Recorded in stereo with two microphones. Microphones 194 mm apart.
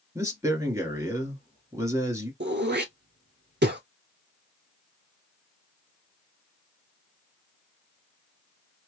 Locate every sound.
0.1 s a man speaking: 15° right (ahead or behind), 1.4 m
2.4 s throat clearing: 60° right (ahead or behind), 0.6 m